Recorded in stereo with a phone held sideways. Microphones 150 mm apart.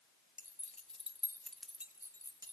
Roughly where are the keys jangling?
Left.